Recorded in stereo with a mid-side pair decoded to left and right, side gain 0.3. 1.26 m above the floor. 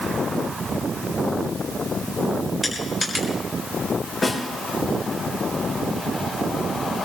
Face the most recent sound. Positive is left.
turn(degrees=65)